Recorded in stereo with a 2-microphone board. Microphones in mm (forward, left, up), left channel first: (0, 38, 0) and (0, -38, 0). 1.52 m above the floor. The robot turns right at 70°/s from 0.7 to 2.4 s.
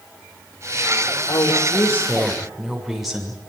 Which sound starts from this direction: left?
A woman speaking, at 1.3 s.